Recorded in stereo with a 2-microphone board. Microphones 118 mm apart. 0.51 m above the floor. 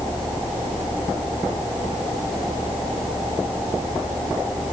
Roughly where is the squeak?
I don't hear a squeak.